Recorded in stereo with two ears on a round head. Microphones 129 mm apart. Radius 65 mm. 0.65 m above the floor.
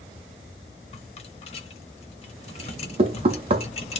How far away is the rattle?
About 0.7 m.